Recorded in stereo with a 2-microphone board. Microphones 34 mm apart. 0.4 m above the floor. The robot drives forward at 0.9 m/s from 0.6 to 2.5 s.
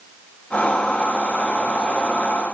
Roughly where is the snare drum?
I don't hear a snare drum.